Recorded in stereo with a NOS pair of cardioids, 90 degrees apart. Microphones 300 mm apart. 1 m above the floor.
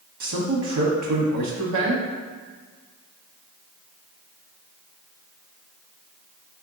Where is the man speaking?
70° right, 1.4 m.